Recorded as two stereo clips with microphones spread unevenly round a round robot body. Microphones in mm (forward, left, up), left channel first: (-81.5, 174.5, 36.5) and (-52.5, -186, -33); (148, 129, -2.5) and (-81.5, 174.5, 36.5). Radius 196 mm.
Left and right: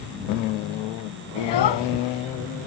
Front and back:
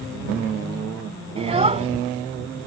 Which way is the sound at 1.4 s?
105° left.